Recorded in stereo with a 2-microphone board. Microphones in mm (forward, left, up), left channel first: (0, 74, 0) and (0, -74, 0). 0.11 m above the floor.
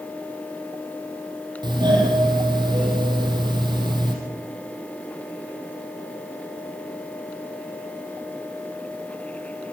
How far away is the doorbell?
About 5 m.